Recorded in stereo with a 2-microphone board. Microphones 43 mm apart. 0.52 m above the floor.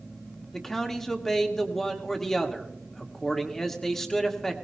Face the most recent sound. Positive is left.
turn(degrees=10)  # may be behind; listen again after turning